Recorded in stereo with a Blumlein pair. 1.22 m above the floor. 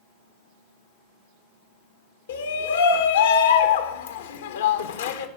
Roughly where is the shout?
Ahead left.